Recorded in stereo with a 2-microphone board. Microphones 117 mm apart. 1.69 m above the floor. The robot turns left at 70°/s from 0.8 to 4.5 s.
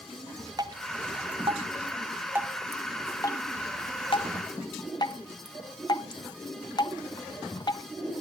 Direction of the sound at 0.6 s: 35° right (ahead or behind).